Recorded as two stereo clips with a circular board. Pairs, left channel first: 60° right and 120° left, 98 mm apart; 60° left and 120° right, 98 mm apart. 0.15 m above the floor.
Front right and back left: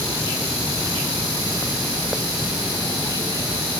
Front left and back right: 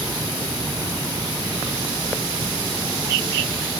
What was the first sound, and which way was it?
Only background noise.